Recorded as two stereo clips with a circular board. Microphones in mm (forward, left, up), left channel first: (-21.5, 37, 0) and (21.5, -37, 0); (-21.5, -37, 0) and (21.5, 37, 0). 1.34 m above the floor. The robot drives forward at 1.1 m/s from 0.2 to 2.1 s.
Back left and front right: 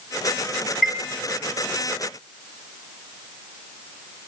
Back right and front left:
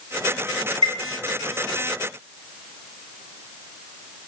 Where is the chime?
30° left, 1.1 m; by 1.0 s 40° left, 1.0 m.